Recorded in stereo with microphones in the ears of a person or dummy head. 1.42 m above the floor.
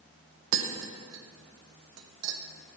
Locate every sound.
0.5 s tapping: 80° right, 0.9 m